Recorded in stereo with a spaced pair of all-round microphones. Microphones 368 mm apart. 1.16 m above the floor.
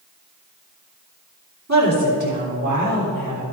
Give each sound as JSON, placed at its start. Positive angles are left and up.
{"t": 1.7, "sound": "a woman speaking", "side_deg": -45, "distance_m": 3.0}